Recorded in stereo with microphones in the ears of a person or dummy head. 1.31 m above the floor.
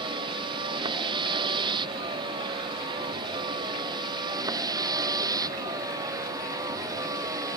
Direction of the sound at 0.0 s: 25° right (ahead or behind).